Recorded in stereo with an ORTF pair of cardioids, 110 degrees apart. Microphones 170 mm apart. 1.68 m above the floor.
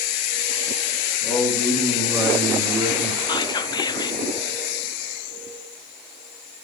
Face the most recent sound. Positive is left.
turn(degrees=25)